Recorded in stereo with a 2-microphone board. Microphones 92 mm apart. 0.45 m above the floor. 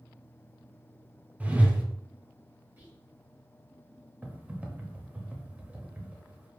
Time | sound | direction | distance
1.4 | a whoosh | 20° right (ahead or behind) | 0.7 m
2.8 | whispering | 20° right (ahead or behind) | 1.9 m
4.2 | typing on a keyboard | 20° right (ahead or behind) | 0.8 m